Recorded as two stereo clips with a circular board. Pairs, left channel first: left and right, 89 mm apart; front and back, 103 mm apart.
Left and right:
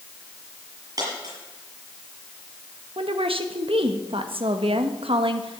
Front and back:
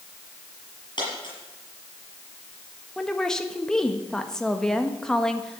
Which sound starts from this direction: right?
A woman speaking, at 3.0 s.